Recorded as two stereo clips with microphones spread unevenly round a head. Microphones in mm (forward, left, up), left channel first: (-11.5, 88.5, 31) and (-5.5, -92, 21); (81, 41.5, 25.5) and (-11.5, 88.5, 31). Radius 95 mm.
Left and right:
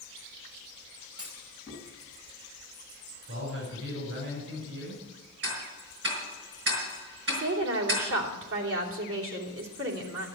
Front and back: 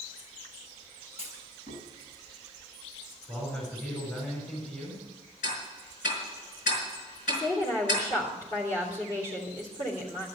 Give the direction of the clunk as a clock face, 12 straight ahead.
1 o'clock.